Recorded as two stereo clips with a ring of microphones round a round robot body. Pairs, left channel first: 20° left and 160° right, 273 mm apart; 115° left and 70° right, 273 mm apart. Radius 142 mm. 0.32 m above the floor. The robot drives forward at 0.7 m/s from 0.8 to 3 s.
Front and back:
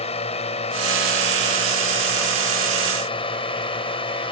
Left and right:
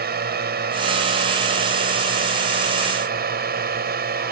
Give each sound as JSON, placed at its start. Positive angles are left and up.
{"t": 0.0, "sound": "a drone", "azimuth_deg": -35}